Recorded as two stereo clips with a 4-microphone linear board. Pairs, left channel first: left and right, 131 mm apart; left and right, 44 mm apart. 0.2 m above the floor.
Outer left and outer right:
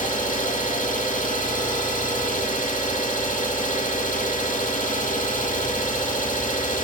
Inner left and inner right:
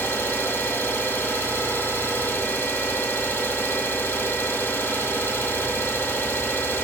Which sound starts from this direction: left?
An engine running, at 0.0 s.